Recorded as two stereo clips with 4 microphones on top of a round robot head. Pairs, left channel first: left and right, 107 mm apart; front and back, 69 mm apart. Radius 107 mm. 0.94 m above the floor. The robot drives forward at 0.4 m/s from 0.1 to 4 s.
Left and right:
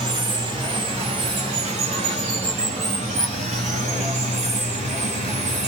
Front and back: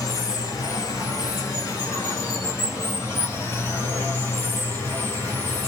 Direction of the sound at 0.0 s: 50° right.